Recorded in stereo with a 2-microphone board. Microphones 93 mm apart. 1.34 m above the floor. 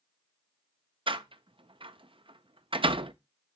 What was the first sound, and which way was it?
A door slam, 65° right (ahead or behind).